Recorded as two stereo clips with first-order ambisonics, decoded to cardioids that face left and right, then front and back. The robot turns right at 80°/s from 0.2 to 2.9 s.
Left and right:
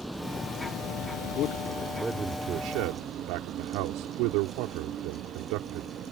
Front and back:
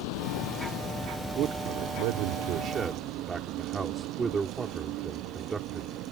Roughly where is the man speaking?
Behind left.